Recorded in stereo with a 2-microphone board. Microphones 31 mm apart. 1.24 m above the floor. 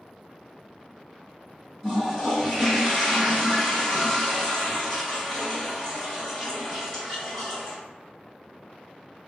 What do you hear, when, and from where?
1.8 s a toilet flushing: 15° left (ahead or behind), 1.5 m